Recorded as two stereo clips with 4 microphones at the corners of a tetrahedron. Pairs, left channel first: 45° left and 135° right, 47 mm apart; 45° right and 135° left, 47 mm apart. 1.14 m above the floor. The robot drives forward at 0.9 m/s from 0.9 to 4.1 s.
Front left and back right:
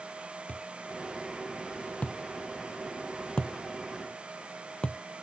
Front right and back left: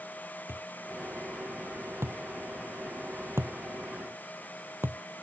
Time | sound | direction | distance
0.5 | a thud | 105° left | ?